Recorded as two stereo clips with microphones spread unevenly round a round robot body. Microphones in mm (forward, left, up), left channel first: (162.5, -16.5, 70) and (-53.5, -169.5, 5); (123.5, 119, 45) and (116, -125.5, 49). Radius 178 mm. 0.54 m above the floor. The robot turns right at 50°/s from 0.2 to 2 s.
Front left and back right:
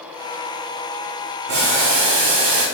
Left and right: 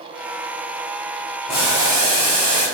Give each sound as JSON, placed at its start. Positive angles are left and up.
{"t": 1.5, "sound": "boiling", "azimuth_deg": 175, "distance_m": 3.5}